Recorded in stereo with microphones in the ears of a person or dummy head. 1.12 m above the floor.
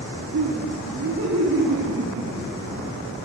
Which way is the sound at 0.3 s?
85° right.